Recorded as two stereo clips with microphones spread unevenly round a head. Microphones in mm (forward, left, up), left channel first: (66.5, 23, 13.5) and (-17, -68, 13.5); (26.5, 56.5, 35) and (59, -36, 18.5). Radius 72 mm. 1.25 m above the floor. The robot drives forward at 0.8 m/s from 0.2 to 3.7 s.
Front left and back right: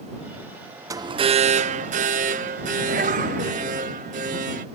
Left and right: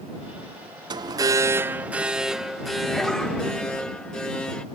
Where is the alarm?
75° right; by 4.7 s 165° right.